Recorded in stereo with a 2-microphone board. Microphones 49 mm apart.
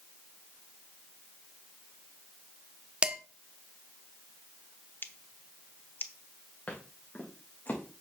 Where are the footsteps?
30° left (ahead or behind), 4.5 m; by 7.8 s 40° left (ahead or behind), 5 m.